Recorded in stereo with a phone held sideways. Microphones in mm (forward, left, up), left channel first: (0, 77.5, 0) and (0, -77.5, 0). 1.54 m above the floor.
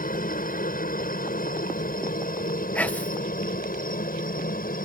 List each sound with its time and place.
0.0 s a helicopter: 60° left (ahead or behind); by 4.9 s 65° left (ahead or behind)
2.8 s whispering: 10° left (ahead or behind)